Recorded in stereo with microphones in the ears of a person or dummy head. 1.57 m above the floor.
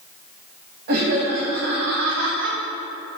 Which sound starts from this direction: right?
Laughter, at 0.9 s.